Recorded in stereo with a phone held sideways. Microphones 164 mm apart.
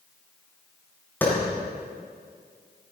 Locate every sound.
1.2 s a clap: 15° left (ahead or behind), 7.5 m